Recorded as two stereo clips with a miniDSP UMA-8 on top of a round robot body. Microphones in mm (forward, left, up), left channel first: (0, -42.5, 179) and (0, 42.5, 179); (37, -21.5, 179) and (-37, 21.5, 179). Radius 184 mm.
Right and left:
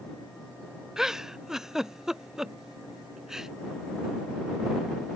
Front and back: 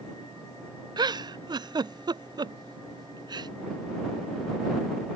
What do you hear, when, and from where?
1.0 s a giggle: 175° left